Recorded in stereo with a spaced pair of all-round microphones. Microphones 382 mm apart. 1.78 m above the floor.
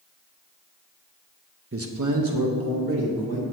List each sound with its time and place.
1.7 s a man speaking: 30° right (ahead or behind), 0.6 m; by 3.4 s 75° right (ahead or behind), 1.9 m